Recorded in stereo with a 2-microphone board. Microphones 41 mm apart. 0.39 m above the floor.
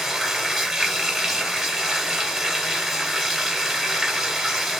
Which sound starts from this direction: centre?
Running water, at 0.0 s.